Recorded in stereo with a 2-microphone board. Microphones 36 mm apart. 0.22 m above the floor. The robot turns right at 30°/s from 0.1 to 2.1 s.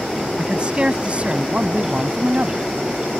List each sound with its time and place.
0.4 s a man speaking: 135° right; by 2.7 s 85° right